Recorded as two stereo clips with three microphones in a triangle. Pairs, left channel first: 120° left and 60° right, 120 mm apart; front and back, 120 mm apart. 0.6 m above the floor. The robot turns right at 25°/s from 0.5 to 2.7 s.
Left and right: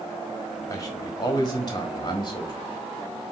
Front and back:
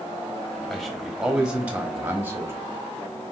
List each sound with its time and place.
0.7 s a man speaking: 85° left, 1.3 m; by 2.5 s 130° left, 1.3 m